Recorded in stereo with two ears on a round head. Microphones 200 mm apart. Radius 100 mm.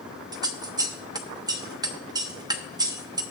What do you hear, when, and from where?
0.3 s scissors: 15° right (ahead or behind), 0.8 m